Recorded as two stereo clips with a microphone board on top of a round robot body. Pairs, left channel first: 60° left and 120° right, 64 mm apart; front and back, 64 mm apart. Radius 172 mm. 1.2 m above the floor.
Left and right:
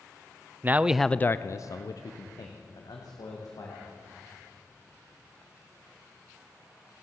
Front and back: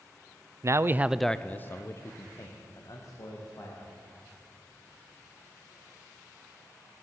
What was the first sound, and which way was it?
A man speaking, 170° right.